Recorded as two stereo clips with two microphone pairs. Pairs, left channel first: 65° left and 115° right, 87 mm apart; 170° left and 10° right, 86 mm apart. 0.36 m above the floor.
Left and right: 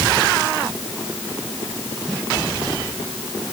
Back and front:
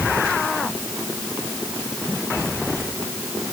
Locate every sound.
Only background noise.